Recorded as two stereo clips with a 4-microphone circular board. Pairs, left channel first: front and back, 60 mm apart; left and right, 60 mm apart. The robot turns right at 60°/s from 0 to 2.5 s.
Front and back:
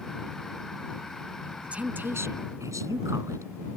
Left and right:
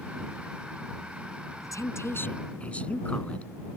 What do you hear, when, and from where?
1.6 s a woman speaking: 105° left; by 3.5 s 160° left